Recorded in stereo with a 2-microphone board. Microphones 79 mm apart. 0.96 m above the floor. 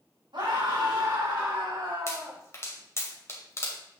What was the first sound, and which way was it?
A scream, 85° right.